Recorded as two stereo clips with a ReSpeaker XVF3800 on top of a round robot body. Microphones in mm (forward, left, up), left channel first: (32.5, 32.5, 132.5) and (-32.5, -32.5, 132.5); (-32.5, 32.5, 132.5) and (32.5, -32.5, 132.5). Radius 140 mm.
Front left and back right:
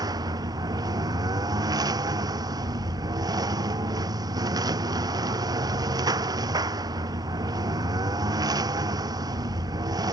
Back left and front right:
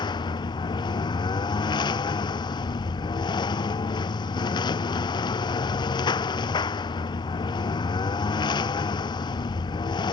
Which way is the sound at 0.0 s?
175° left.